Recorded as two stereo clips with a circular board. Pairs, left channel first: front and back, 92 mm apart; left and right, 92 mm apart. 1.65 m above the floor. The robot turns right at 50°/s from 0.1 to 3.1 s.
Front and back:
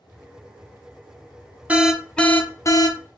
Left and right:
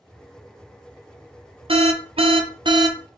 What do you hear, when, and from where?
1.7 s an alarm: 105° right, 0.6 m; by 3.0 s 40° right, 0.6 m